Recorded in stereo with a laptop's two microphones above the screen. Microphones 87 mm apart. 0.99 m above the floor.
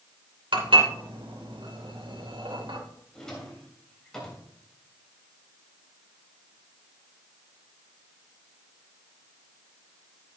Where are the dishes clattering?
75° right (ahead or behind), 2.5 m.